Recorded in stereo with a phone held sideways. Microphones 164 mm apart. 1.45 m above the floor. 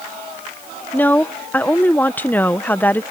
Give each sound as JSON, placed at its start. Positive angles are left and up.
{"t": 0.9, "sound": "a woman speaking", "side_deg": 10}